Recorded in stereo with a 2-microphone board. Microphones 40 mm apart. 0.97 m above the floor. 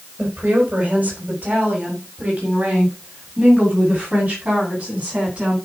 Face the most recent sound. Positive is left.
turn(degrees=-30)  # may be behind; listen again after turning